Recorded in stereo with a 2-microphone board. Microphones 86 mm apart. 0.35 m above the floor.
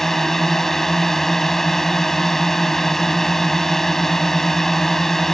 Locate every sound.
0.0 s a drone: 5° left (ahead or behind)